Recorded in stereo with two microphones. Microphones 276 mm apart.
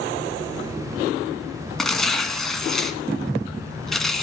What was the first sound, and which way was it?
Tearing paper, centre (ahead or behind).